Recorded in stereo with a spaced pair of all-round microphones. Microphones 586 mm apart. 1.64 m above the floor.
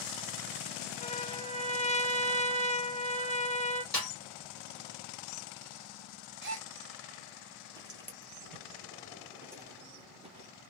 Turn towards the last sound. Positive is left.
turn(degrees=-10)  # may be behind; listen again after turning